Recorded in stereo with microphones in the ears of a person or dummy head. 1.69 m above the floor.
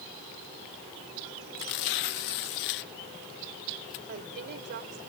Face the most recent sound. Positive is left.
turn(degrees=-50)  # may be behind; listen again after turning